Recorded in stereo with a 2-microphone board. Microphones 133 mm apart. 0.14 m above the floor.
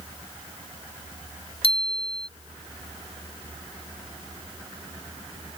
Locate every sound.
1.6 s a bicycle bell: 50° left (ahead or behind)